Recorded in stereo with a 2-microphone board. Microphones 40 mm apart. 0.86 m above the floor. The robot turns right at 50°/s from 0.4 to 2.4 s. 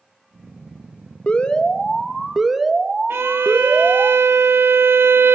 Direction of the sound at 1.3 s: 130° left.